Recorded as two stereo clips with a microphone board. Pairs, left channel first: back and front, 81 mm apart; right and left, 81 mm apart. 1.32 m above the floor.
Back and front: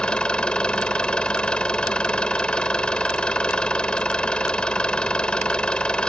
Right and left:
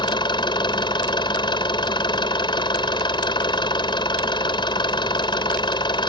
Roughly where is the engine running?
Right.